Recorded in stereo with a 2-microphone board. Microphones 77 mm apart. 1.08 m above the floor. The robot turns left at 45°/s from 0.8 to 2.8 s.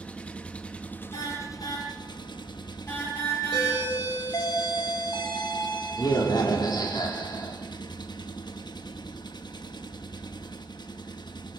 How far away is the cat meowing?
I don't hear a cat meowing.